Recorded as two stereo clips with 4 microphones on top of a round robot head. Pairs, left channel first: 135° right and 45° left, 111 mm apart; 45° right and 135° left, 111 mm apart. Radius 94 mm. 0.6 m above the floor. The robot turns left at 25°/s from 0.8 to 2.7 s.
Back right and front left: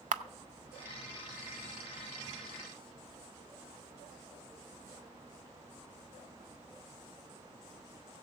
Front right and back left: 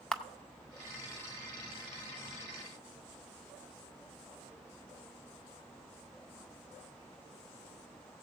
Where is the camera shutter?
40° left, 0.5 m.